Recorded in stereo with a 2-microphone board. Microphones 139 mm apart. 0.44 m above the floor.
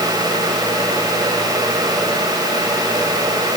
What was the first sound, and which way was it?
Only background noise.